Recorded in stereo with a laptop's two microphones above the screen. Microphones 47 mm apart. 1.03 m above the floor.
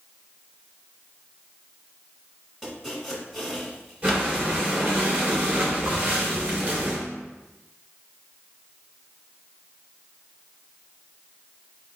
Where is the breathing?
25° right (ahead or behind), 2 m.